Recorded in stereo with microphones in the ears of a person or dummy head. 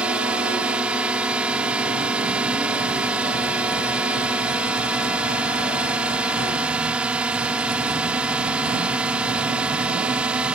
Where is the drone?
5° right (ahead or behind).